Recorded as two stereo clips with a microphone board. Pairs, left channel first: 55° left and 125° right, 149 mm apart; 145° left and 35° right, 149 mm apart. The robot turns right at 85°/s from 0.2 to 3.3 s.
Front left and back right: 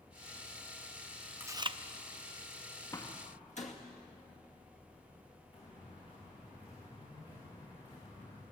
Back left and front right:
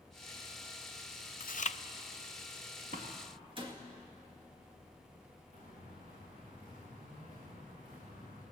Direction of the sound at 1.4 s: 160° left.